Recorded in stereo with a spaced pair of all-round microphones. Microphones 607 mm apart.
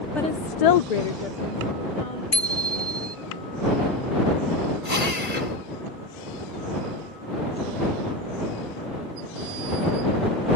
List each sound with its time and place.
0.1 s a woman speaking: centre (ahead or behind); by 2.2 s 60° left (ahead or behind)
2.3 s a bicycle bell: 65° left (ahead or behind)
4.8 s a drill: 75° left (ahead or behind)